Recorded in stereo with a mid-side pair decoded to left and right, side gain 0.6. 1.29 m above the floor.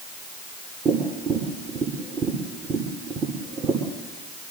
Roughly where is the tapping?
Ahead right.